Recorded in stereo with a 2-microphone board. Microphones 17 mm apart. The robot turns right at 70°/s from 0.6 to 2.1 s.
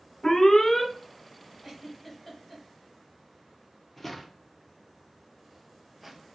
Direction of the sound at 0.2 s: 45° left (ahead or behind).